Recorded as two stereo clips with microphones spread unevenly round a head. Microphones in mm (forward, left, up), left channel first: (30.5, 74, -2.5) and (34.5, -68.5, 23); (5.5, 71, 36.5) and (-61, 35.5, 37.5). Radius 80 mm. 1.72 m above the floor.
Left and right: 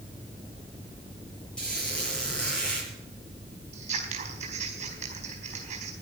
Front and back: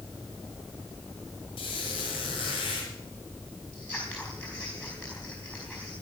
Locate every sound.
1.6 s a squeak: 5° left, 7.5 m
3.7 s scissors: 55° right, 4.5 m